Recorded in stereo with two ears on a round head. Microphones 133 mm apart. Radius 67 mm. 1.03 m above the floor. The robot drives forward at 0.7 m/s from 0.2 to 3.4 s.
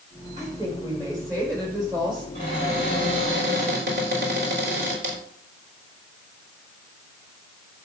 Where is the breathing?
No breathing in this recording.